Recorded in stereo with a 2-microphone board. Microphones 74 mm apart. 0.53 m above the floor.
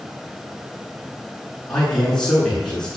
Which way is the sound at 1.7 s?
10° left (ahead or behind).